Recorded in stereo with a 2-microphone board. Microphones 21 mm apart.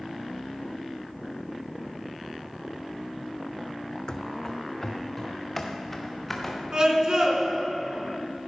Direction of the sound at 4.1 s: 35° left (ahead or behind).